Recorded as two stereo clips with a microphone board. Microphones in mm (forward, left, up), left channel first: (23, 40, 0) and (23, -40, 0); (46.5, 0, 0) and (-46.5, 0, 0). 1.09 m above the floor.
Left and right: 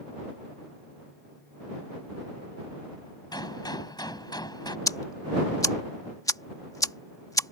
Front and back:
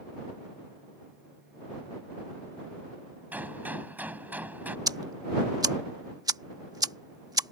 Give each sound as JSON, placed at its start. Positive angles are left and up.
{"t": 3.3, "sound": "a gunshot", "azimuth_deg": 110}
{"t": 4.9, "sound": "ticking", "azimuth_deg": 135}